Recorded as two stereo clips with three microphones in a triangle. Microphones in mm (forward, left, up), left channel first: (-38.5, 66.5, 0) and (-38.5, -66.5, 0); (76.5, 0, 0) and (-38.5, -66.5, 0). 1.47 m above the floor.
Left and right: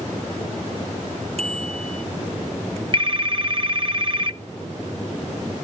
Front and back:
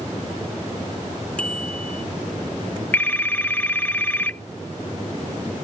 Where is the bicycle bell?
55° right.